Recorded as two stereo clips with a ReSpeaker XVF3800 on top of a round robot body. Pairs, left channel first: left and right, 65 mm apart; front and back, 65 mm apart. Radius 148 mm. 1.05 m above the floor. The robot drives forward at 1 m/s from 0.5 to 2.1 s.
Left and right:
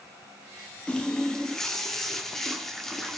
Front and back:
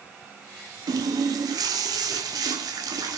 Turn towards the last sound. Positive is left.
turn(degrees=175)